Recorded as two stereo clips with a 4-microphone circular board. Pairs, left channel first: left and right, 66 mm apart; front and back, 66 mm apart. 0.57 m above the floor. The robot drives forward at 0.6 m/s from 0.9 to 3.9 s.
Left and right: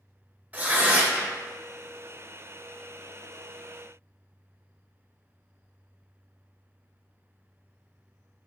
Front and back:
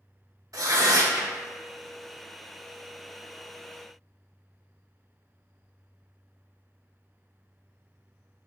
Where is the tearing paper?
155° right, 0.6 m; by 1.3 s 165° right, 0.8 m.